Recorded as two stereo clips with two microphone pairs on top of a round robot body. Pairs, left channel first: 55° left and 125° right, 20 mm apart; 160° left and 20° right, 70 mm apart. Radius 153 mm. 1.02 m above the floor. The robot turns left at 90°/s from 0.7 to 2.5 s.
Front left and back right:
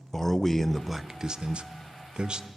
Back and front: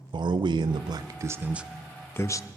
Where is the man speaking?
20° right, 0.5 m; by 2.5 s straight behind, 0.5 m.